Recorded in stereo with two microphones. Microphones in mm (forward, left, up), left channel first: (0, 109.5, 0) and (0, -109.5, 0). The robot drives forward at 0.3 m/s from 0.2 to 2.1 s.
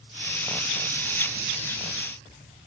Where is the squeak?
I don't hear a squeak.